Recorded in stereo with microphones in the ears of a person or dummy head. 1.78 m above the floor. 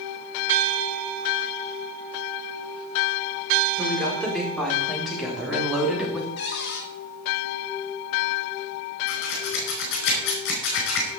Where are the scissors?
75° left (ahead or behind), 4.5 m.